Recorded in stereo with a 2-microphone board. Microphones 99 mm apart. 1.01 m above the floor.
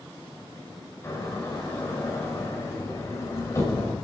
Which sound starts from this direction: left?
A door slam, at 1.0 s.